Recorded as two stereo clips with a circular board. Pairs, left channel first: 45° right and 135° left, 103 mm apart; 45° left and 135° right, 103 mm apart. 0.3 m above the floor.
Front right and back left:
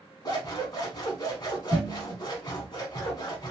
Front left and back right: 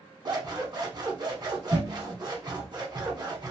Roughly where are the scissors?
Right.